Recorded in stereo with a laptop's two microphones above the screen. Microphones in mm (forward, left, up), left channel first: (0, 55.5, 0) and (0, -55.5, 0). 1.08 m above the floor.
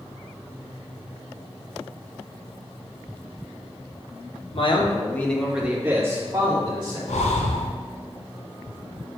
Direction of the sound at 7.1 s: 85° left.